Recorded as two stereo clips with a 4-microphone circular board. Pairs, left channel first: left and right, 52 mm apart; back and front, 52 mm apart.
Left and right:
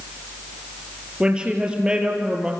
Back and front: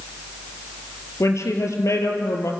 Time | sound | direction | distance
1.2 | a woman speaking | 160° right | 5 m